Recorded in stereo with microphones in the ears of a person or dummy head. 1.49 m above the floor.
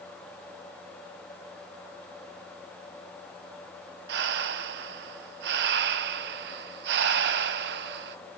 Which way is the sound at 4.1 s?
60° right (ahead or behind).